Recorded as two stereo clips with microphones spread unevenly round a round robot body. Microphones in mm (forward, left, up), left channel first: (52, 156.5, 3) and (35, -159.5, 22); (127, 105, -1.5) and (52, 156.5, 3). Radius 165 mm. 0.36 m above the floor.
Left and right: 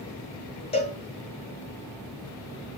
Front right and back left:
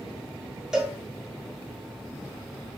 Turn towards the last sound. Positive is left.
turn(degrees=65)